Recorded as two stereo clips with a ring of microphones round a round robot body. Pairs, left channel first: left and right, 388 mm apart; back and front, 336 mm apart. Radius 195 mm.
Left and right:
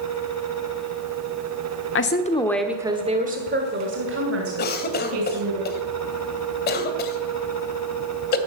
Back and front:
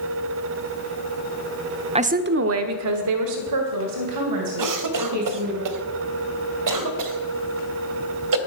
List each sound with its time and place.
1.9 s a woman speaking: 60° left, 1.1 m; by 5.6 s 40° right, 4 m
4.6 s a cough: 25° left, 2 m